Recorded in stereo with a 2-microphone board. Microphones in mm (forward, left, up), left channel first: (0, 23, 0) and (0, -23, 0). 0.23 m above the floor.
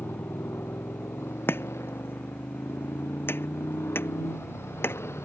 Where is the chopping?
55° left (ahead or behind).